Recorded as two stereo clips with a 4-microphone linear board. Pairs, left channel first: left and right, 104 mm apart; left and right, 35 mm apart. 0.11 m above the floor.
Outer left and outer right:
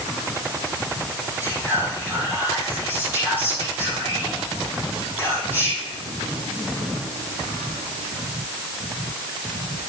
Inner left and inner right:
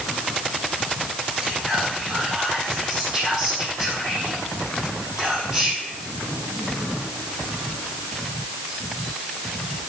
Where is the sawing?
I don't hear sawing.